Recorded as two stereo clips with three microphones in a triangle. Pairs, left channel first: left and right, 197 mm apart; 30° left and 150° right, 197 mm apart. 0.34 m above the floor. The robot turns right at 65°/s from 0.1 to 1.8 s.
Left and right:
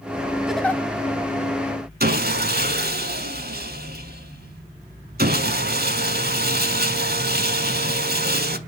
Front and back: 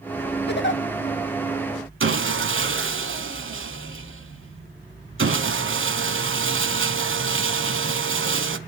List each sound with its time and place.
0.5 s a giggle: 5° right, 0.6 m; by 0.8 s 15° left, 0.6 m
2.0 s sawing: 135° right, 0.7 m